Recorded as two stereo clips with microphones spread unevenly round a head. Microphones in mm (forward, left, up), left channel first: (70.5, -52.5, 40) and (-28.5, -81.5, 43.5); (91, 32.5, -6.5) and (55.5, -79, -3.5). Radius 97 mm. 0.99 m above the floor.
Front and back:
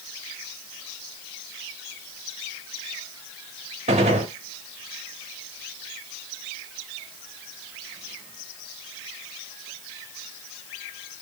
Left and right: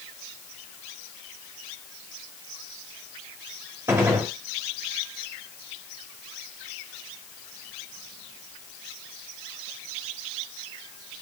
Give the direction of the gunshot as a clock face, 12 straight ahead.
6 o'clock.